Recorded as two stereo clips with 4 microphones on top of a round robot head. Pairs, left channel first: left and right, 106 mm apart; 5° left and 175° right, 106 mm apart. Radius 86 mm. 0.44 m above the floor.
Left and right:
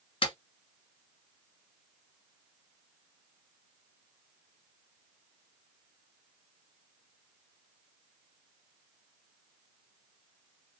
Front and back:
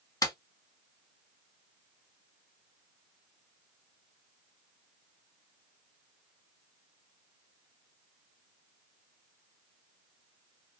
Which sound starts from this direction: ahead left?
A clap, at 0.2 s.